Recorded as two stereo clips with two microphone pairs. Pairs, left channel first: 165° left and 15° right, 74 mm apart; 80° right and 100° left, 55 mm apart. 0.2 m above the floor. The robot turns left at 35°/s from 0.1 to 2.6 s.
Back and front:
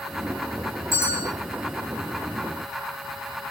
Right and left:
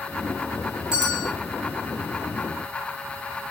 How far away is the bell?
About 1.9 m.